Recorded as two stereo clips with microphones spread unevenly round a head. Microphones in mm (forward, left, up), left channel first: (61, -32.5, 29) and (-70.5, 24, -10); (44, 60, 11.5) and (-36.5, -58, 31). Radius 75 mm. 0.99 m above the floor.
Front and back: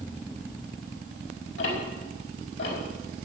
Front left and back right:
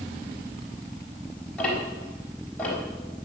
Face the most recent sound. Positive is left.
turn(degrees=-25)